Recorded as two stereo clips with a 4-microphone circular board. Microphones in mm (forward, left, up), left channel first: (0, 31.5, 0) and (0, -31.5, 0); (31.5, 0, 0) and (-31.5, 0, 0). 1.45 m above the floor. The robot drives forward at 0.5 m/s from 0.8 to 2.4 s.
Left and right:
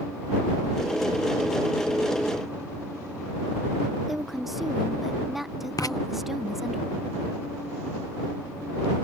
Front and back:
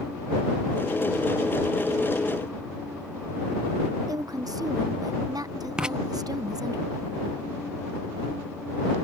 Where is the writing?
105° left.